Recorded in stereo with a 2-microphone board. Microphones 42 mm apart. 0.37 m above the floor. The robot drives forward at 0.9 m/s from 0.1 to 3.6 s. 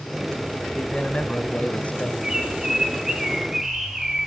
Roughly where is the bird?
Centre.